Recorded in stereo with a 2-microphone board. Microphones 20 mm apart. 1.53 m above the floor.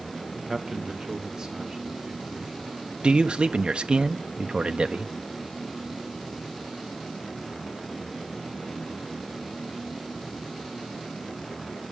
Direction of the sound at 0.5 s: 15° right (ahead or behind).